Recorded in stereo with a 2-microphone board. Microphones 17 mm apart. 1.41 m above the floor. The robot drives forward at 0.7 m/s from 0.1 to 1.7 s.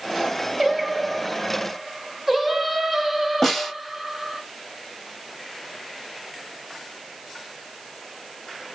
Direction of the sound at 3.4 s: 10° left (ahead or behind).